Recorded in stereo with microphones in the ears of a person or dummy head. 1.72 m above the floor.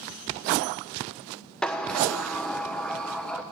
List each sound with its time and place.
1.6 s a sliding door: 5° left (ahead or behind), 1.0 m